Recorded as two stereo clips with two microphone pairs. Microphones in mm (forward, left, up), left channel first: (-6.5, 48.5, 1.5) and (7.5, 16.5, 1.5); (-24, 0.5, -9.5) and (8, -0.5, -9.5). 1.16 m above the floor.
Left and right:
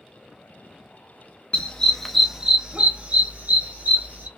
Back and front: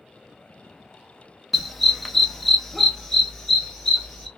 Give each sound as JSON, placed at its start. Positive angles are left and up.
{"t": 1.5, "sound": "a dog barking", "azimuth_deg": 85, "distance_m": 0.6}